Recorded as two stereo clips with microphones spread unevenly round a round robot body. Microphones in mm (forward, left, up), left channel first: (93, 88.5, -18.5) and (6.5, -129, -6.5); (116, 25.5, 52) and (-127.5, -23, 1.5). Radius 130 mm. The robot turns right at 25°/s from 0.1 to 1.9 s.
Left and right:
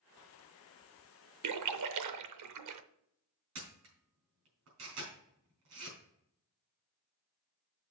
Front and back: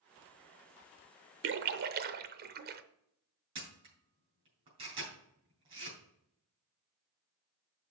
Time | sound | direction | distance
1.4 | a splash | 130° right | 0.7 m
3.5 | a camera shutter | 100° right | 4 m